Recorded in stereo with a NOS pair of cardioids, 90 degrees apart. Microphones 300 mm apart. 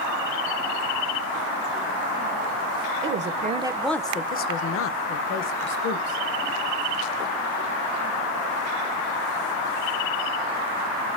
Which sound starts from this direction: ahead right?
A woman speaking, at 3.0 s.